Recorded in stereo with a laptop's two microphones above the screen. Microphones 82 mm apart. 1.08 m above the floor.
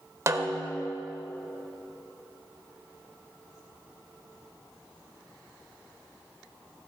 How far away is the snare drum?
About 1.1 m.